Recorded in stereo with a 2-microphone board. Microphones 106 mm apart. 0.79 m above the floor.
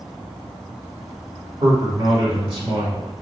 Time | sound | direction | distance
1.6 | a man speaking | 50° right (ahead or behind) | 1.9 m